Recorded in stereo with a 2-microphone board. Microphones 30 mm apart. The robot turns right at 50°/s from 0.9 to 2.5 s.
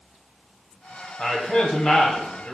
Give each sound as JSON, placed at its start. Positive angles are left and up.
{"t": 1.2, "sound": "a man speaking", "side_deg": 15, "distance_m": 1.0}